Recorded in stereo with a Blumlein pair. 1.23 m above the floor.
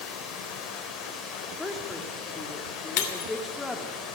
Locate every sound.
0.0 s running water: 25° left, 4 m
1.6 s a woman speaking: 10° left, 3 m
3.0 s breaking glass: 45° left, 2.5 m